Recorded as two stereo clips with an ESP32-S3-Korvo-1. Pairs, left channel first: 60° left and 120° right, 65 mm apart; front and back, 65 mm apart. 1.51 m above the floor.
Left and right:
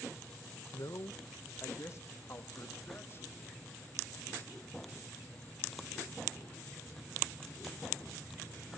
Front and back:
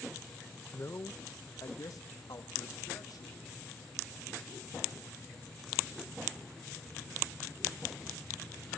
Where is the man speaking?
50° left, 0.8 m; by 3.4 s 10° left, 2.5 m.